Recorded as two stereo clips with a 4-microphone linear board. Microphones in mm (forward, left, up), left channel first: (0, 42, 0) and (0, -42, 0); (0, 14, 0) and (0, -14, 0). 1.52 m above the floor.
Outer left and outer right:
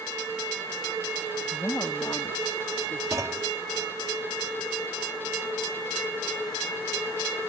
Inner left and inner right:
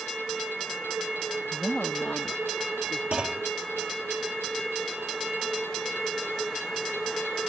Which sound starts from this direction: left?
A woman speaking, at 1.5 s.